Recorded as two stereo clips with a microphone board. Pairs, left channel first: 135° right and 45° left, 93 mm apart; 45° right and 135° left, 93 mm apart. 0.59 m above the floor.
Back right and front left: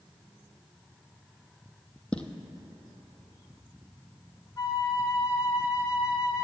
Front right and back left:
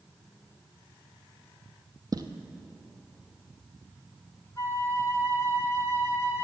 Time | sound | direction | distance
2.1 | footsteps | 150° left | 0.8 m
4.6 | a flute | 95° right | 0.9 m